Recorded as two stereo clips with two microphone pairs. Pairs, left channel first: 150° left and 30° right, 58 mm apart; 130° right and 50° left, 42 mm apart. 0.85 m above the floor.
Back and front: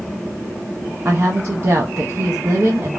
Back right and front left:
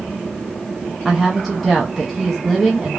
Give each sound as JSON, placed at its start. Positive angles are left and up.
{"t": 1.1, "sound": "a woman speaking", "azimuth_deg": -40, "distance_m": 0.5}